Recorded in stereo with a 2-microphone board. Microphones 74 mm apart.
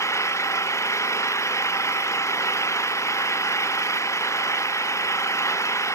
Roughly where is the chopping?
No chopping in this recording.